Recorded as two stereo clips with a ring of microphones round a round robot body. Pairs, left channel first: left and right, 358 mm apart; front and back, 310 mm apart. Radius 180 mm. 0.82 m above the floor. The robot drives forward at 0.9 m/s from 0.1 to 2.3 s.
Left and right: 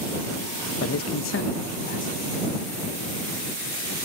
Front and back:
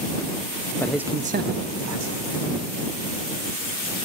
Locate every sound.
0.8 s a man speaking: 75° left, 0.8 m; by 2.2 s 160° left, 1.4 m